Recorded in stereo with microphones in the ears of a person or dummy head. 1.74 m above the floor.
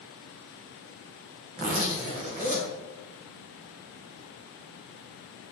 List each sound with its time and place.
1.6 s a zipper: 40° right (ahead or behind), 1.2 m